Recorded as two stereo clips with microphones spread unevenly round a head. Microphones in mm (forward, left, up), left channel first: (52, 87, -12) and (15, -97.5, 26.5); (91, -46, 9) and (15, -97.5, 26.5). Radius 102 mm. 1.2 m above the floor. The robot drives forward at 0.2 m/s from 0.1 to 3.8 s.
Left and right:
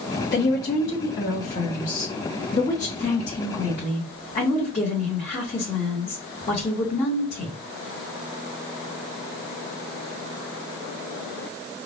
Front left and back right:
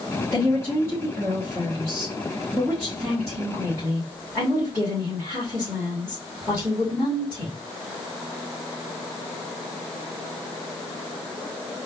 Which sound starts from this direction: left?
A woman speaking, at 0.3 s.